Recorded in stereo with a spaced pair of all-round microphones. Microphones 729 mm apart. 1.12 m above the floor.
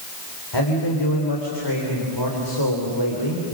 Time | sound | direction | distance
0.5 | a man speaking | 35° left (ahead or behind) | 4 m